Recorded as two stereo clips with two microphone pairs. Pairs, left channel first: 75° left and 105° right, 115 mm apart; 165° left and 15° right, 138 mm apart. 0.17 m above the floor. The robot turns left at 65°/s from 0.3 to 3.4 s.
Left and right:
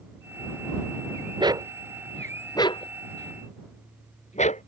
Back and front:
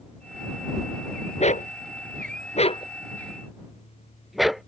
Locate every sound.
1.4 s a dog barking: 155° right; by 4.6 s 75° left